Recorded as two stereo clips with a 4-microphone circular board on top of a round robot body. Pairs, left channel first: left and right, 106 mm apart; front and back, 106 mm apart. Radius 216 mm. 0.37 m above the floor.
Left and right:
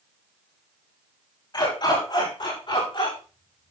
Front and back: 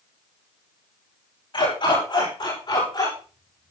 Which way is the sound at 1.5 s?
40° left.